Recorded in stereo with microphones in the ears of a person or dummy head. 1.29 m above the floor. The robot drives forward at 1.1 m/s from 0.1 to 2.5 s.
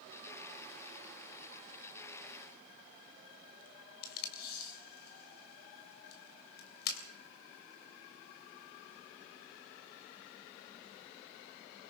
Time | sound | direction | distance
4.0 | tape being pulled | 65° left (ahead or behind) | 3.5 m